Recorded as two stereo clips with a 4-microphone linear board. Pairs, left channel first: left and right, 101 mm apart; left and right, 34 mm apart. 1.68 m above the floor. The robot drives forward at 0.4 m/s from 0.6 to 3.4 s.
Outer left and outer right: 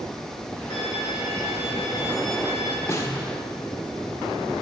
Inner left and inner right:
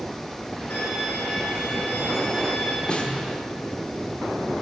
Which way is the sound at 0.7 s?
80° left.